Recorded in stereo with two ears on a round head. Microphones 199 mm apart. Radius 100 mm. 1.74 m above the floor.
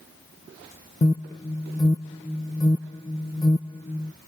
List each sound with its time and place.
1.0 s an alarm: 15° left (ahead or behind)